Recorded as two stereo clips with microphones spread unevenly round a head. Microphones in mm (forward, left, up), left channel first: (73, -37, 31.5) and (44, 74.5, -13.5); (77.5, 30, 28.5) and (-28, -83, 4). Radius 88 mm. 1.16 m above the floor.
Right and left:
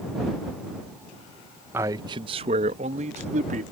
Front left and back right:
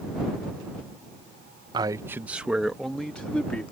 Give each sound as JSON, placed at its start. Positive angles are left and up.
{"t": 1.7, "sound": "a man speaking", "azimuth_deg": 170}